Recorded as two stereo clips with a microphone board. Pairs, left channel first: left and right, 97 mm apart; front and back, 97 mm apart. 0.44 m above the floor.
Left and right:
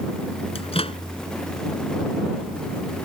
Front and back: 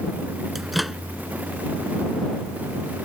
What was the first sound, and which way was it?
A microwave, 90° left.